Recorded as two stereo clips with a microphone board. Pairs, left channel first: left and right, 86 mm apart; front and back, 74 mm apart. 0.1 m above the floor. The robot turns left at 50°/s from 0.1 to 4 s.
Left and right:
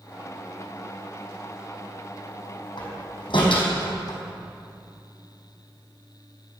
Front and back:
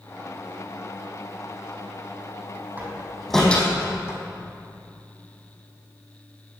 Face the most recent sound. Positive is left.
turn(degrees=55)